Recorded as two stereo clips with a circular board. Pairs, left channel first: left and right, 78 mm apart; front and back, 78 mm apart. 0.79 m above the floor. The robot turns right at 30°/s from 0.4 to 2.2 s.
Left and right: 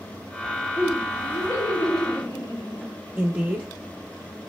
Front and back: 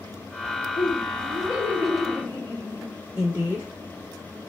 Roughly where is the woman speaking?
Behind right.